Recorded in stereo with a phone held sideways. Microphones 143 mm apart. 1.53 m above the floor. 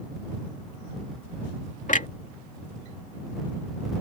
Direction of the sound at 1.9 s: 60° left (ahead or behind).